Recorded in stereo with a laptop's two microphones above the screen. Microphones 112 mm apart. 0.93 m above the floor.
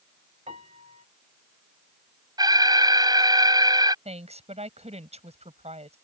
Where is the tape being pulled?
No tape being pulled in this recording.